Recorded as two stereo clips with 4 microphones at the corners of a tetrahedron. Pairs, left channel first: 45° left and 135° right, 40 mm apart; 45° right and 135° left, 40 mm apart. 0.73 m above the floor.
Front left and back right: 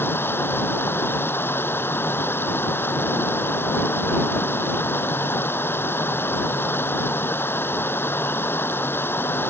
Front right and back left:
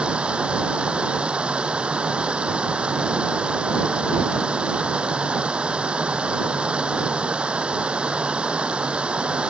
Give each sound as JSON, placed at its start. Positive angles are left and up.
{"t": 0.0, "sound": "running water", "azimuth_deg": 70}